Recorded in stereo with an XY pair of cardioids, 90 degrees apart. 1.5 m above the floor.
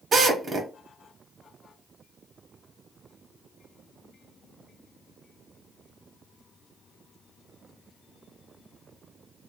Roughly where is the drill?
Ahead right.